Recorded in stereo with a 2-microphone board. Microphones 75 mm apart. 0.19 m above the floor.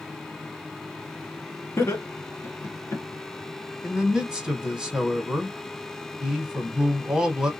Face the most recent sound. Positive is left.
turn(degrees=-10)  # may be behind; listen again after turning